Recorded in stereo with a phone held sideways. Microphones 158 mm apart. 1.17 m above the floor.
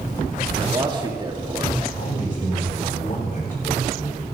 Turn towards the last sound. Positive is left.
turn(degrees=60)  # may be behind; listen again after turning